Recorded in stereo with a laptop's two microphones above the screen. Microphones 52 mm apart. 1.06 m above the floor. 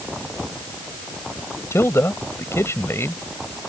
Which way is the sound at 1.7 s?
60° left (ahead or behind).